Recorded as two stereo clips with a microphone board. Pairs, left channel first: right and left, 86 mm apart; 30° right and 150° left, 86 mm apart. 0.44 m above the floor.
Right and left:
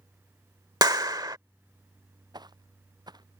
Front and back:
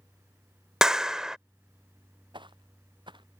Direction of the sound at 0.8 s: 70° left.